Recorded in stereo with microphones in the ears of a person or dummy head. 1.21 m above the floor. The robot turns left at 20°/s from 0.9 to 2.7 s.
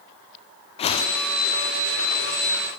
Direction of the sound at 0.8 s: 30° left (ahead or behind).